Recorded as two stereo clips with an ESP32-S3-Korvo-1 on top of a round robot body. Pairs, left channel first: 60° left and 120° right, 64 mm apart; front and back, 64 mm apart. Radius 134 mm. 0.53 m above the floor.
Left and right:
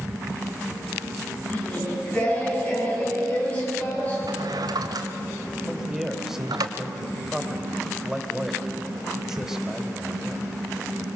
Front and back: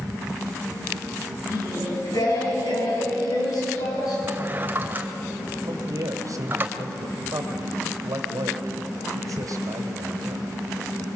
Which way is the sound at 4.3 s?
120° right.